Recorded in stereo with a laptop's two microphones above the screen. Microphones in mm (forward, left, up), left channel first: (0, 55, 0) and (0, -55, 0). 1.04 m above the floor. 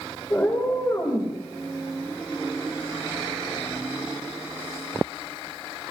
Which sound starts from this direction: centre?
A cat meowing, at 0.3 s.